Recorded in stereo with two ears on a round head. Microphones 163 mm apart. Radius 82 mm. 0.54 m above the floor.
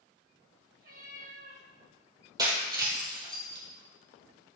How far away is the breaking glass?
About 3.5 m.